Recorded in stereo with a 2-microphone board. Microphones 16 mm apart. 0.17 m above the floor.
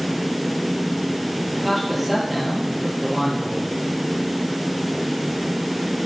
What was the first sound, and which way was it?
A man speaking, 5° right (ahead or behind).